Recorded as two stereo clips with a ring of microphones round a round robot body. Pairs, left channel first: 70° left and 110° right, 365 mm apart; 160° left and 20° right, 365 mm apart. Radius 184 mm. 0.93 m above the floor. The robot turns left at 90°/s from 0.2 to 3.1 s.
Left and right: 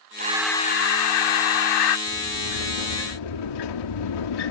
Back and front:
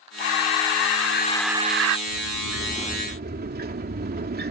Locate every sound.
0.2 s breathing: straight behind; by 2.0 s 20° left
2.1 s a sliding door: 135° left; by 4.5 s 45° left